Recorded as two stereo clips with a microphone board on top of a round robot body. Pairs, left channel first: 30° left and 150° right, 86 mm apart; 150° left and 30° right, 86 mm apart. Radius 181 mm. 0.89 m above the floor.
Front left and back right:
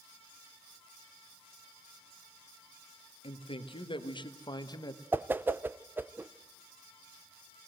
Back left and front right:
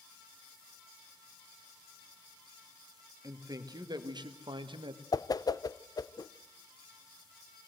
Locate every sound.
3.2 s a man speaking: 20° left, 1.8 m; by 5.0 s 15° right, 1.6 m
5.1 s a whoosh: 150° left, 0.8 m